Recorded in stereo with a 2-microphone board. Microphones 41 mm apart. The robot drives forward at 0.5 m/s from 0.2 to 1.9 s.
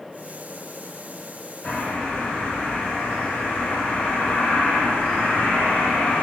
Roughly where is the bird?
Left.